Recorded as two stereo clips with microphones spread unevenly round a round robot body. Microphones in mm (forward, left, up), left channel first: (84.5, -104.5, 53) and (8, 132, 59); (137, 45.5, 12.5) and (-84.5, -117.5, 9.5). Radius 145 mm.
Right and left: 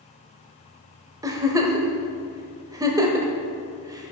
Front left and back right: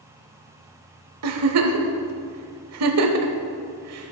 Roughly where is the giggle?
Behind.